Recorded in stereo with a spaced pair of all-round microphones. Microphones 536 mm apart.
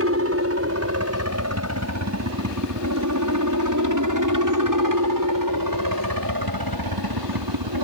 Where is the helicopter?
25° right (ahead or behind); by 7.8 s 45° right (ahead or behind).